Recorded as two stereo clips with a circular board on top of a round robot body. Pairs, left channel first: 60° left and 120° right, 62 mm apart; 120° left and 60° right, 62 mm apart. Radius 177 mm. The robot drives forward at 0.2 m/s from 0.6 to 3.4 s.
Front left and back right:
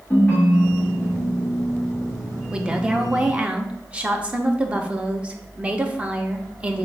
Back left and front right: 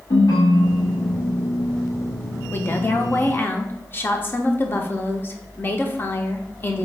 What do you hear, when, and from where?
0.1 s a ringtone: 125° left, 1.1 m; by 1.6 s 135° left, 1.2 m
2.5 s a woman speaking: 165° left, 0.7 m; by 6.9 s 170° left, 0.8 m